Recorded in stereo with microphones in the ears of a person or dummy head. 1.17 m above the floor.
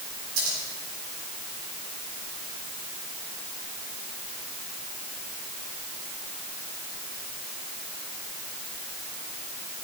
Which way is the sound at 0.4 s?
85° right.